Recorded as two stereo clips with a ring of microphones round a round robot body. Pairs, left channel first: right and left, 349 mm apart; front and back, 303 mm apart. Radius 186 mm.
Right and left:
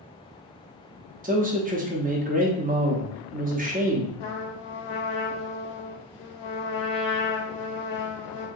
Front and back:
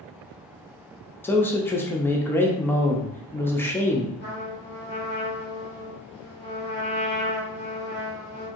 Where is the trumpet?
120° right, 0.5 m.